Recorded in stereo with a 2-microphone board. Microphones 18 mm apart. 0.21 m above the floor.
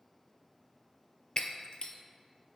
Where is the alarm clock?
No alarm clock in this recording.